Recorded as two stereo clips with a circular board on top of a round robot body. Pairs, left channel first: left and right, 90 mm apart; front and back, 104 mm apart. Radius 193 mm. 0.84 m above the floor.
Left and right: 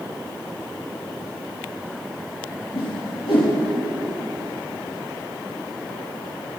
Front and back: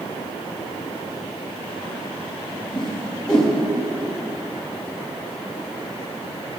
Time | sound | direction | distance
2.7 | a whoosh | 85° left | 4 m